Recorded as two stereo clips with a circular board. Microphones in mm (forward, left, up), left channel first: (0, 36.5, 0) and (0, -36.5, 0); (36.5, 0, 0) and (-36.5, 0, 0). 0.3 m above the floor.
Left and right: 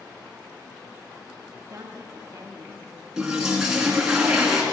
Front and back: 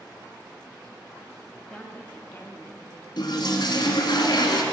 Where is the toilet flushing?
10° right, 1.8 m.